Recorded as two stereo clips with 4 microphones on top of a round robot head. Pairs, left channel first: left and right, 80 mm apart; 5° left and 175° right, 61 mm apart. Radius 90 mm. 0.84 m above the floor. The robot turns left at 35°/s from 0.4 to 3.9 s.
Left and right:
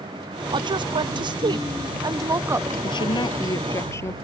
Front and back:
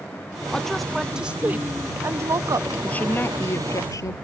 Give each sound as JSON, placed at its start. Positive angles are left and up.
{"t": 0.5, "sound": "a woman speaking", "azimuth_deg": -75}
{"t": 2.8, "sound": "a woman speaking", "azimuth_deg": 70}